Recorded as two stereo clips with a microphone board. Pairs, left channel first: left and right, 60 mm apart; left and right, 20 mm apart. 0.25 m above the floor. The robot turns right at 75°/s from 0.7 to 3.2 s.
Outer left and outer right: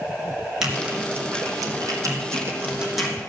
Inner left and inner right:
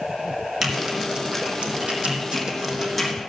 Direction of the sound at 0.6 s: 5° right (ahead or behind).